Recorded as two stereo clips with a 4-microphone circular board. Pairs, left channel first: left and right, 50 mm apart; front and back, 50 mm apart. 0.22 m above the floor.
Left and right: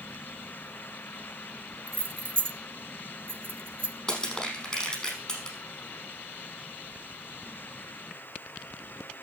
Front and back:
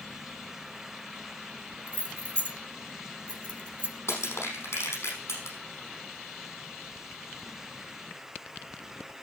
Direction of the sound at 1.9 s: 60° right.